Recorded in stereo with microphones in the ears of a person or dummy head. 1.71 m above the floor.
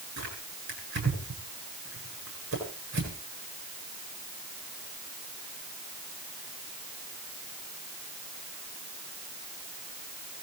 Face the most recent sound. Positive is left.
turn(degrees=-60)  # may be behind; listen again after turning